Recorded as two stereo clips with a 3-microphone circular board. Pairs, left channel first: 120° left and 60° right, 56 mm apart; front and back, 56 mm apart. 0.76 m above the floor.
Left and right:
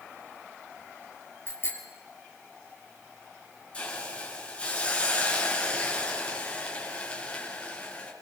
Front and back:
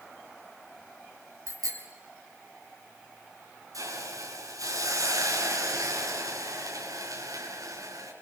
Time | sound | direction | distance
1.5 | a bicycle bell | 170° left | 6.5 m
3.7 | a hiss | 170° right | 7 m